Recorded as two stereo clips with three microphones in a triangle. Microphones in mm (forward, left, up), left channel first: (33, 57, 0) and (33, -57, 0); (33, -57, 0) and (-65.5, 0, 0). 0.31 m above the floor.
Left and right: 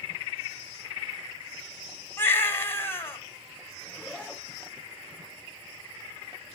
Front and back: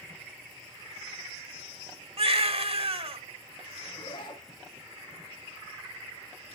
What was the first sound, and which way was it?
A baby crying, 155° left.